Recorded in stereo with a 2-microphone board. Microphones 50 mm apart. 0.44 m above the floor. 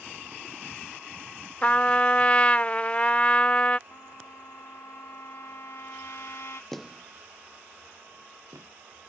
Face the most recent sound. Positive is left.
turn(degrees=-80)